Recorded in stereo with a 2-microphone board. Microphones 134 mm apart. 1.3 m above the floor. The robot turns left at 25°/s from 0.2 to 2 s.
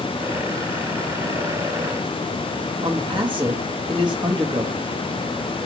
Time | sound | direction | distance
2.8 | a man speaking | 35° right (ahead or behind) | 1.4 m